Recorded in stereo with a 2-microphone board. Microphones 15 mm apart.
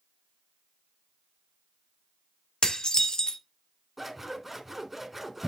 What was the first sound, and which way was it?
Dishes clattering, 70° left (ahead or behind).